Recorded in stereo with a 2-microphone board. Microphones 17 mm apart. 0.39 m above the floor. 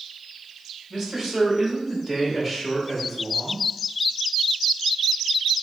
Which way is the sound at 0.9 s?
35° right (ahead or behind).